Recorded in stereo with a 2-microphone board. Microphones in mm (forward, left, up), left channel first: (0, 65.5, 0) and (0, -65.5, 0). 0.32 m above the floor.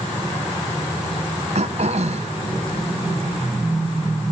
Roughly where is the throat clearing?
Right.